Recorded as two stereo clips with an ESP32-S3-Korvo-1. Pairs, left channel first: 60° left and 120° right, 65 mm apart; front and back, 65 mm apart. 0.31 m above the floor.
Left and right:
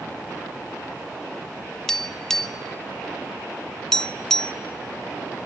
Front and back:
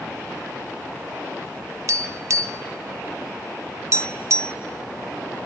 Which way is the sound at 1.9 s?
145° left.